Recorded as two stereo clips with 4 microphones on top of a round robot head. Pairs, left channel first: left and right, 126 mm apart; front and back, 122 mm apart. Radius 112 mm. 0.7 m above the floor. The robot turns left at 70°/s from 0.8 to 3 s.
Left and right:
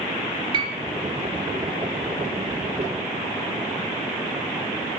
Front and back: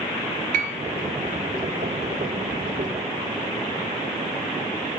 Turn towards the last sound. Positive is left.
turn(degrees=55)